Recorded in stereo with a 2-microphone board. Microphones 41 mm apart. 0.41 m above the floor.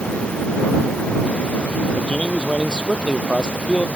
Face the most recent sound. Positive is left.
turn(degrees=25)  # may be behind; listen again after turning